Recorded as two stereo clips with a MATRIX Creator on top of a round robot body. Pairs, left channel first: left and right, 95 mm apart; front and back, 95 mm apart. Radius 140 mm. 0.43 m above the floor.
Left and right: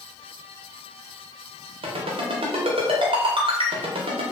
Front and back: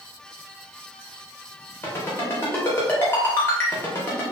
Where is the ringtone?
65° right, 0.6 m.